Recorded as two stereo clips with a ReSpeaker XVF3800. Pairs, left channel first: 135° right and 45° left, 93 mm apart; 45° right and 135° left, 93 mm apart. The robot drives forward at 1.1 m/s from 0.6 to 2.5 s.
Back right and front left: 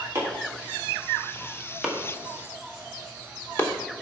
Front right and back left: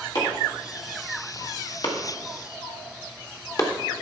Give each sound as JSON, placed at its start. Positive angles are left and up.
{"t": 0.1, "sound": "chopping", "azimuth_deg": -20, "distance_m": 2.5}